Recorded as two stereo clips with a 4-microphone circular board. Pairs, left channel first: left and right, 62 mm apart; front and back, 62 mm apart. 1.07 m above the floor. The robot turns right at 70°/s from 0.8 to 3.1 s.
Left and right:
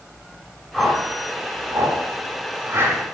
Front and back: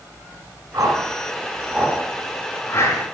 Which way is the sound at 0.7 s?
Straight behind.